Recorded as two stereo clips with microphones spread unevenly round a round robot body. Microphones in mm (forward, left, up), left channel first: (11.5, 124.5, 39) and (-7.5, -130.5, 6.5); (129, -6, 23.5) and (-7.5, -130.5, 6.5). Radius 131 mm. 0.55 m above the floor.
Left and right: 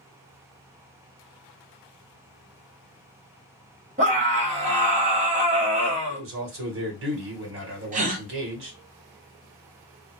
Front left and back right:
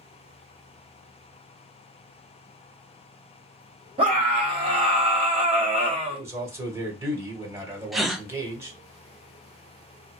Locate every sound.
4.0 s a scream: 115° right, 1.4 m
6.1 s a man speaking: 65° right, 1.5 m
7.9 s a gasp: 55° right, 0.6 m